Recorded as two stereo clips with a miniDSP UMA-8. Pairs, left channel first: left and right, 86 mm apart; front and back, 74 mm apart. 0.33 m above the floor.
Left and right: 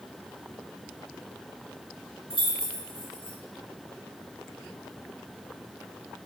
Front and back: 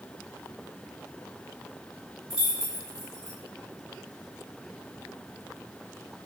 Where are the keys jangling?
100° left, 1.7 m.